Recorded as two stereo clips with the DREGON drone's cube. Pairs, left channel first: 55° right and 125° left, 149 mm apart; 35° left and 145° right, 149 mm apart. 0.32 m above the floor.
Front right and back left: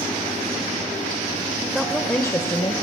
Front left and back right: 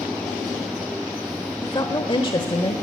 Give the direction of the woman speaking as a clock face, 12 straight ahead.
10 o'clock.